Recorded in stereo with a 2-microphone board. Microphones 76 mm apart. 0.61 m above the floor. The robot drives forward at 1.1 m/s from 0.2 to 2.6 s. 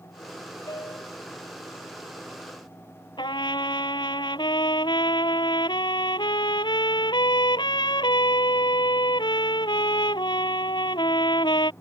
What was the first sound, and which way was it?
A piano, 60° left (ahead or behind).